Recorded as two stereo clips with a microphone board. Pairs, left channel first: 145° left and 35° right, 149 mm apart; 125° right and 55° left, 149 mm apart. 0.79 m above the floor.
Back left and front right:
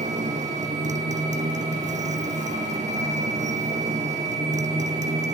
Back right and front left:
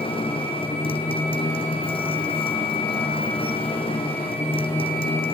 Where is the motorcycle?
75° right.